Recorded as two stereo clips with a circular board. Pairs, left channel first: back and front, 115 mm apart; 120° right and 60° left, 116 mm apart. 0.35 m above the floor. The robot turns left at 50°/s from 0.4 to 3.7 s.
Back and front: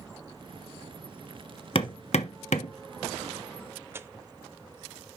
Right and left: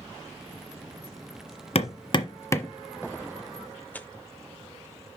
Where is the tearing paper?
55° right, 0.6 m.